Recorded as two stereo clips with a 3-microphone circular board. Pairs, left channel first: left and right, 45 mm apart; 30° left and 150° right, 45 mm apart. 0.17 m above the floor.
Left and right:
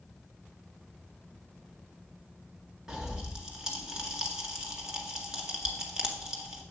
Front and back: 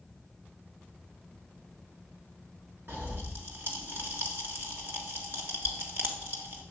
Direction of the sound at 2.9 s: 165° right.